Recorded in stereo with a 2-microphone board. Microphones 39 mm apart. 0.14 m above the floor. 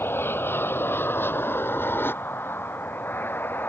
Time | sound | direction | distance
0.0 | an aircraft | 65° left (ahead or behind) | ?